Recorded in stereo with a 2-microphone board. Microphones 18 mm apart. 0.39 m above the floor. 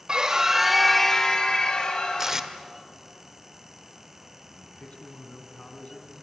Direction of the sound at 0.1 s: 45° right (ahead or behind).